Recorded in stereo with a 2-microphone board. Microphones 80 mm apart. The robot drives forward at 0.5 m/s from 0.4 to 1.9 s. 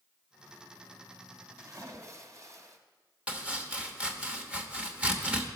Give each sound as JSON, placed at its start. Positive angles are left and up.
{"t": 1.6, "sound": "a splash", "side_deg": -40, "distance_m": 1.3}
{"t": 3.3, "sound": "chopping", "side_deg": -15, "distance_m": 1.0}